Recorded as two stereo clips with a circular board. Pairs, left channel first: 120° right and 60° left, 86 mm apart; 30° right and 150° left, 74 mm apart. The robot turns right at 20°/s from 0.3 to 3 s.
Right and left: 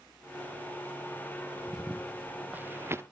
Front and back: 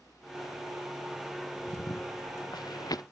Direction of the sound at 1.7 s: 30° right.